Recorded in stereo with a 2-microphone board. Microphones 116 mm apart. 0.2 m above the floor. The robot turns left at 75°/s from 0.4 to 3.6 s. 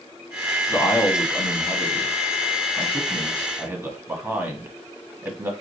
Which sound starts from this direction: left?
A man speaking, at 0.7 s.